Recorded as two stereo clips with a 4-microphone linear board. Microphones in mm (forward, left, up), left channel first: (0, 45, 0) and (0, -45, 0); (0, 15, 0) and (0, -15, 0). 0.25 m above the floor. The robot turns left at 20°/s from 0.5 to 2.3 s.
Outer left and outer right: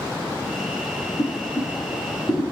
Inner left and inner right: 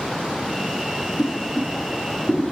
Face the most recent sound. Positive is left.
turn(degrees=40)  # may be behind; listen again after turning